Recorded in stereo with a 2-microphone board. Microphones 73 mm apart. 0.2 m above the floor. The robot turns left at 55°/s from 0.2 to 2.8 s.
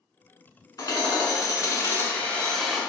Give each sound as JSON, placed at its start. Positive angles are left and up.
{"t": 0.8, "sound": "hammering", "azimuth_deg": 105, "distance_m": 0.9}